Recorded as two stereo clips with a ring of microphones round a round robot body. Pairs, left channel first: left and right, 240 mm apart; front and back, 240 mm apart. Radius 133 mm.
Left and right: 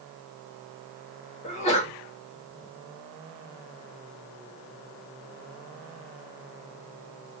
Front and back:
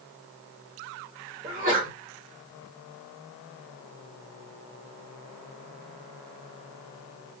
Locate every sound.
1.4 s a sneeze: 145° left, 1.6 m